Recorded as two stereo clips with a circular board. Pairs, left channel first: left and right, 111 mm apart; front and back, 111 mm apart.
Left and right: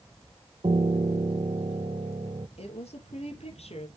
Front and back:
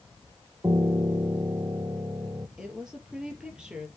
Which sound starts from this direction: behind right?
A piano, at 0.6 s.